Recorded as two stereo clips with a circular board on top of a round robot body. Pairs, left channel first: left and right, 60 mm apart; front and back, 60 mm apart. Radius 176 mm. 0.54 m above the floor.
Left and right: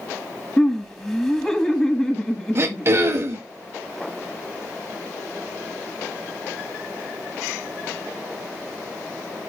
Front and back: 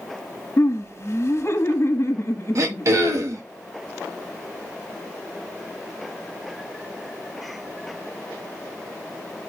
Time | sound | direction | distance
0.6 | laughter | 25° left | 1.6 m
2.5 | throat clearing | 140° right | 0.9 m